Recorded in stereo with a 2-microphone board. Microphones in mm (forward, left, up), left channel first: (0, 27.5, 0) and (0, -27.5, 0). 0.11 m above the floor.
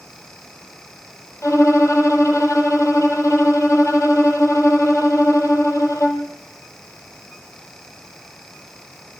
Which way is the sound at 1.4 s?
70° left (ahead or behind).